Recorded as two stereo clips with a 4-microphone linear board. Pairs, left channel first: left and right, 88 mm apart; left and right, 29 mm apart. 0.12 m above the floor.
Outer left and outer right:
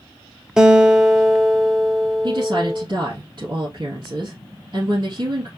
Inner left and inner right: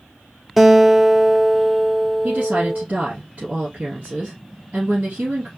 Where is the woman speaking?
55° right (ahead or behind), 1.9 m.